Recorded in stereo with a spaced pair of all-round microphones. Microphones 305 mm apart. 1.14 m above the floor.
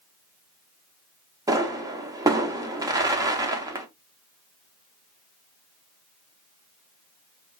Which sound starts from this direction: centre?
A pop, at 1.5 s.